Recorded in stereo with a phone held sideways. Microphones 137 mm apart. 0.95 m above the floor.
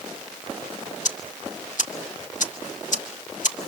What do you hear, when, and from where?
1.1 s ticking: 65° left (ahead or behind), 1.7 m